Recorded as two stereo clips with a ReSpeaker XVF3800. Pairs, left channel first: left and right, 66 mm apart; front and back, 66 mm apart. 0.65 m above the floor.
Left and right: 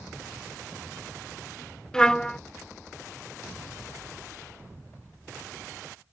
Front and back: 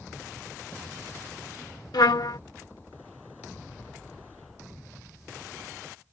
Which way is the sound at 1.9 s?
10° left.